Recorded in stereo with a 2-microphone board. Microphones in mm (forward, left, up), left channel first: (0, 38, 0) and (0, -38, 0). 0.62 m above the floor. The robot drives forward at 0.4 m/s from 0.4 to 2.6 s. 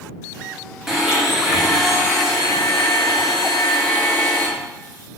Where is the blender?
5° right (ahead or behind), 0.7 m.